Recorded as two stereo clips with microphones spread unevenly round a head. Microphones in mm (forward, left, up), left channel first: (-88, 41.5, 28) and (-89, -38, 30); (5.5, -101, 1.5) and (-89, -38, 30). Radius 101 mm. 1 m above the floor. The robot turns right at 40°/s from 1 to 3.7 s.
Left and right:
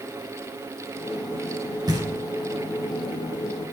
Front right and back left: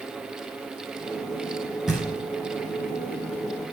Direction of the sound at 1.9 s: 125° right.